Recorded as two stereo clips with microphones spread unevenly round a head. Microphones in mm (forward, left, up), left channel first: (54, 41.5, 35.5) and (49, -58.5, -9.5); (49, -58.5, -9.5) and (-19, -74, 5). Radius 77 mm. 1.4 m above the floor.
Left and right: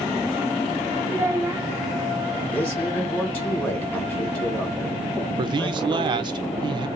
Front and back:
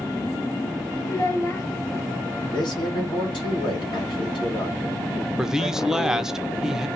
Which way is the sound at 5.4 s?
80° right.